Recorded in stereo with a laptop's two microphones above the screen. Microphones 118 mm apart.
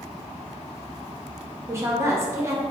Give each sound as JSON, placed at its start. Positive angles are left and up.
{"t": 1.7, "sound": "a woman speaking", "side_deg": -20, "distance_m": 0.6}